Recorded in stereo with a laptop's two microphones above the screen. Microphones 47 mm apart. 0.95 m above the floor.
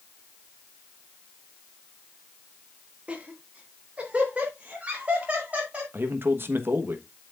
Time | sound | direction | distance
3.1 | laughter | 25° right (ahead or behind) | 1.7 m
5.9 | a man speaking | 55° right (ahead or behind) | 1.1 m